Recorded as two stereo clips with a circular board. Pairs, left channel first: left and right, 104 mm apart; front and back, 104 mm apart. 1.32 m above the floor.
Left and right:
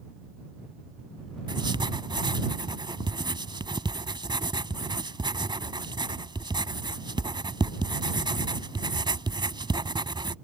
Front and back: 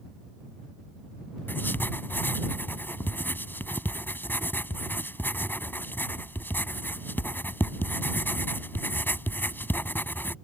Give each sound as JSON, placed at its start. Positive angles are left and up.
{"t": 1.5, "sound": "writing", "azimuth_deg": -65}